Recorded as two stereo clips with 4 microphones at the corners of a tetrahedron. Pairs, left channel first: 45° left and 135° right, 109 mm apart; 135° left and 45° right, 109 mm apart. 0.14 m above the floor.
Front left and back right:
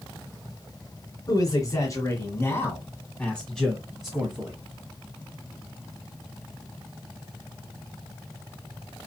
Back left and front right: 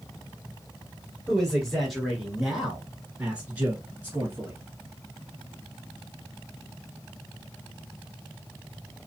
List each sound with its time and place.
1.3 s a man speaking: 55° left, 1.9 m; by 4.6 s 75° right, 1.6 m